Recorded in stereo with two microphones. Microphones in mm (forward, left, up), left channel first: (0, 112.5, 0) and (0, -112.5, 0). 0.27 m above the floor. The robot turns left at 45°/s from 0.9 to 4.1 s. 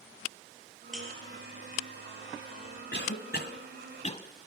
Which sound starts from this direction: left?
A cough, at 2.9 s.